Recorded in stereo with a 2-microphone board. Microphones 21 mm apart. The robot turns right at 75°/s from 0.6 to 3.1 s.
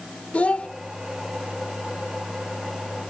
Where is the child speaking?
80° left, 1.6 m; by 0.7 s 85° left, 1.6 m.